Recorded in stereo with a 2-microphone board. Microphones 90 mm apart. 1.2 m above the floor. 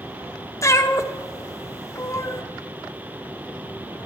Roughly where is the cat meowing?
Left.